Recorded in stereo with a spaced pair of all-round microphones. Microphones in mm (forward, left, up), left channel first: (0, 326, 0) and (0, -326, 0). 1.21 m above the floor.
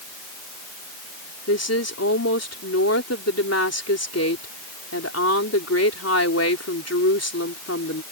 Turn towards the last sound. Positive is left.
turn(degrees=20)  # may be behind; listen again after turning